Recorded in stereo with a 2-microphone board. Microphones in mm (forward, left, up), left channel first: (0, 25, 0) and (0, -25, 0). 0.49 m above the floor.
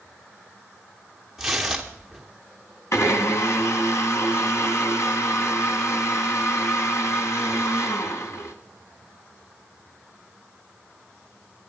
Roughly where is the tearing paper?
Centre.